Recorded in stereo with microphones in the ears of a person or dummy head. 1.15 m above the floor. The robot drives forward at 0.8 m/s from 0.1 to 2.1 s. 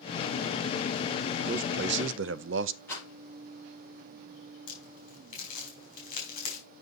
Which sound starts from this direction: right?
A man speaking, at 1.4 s.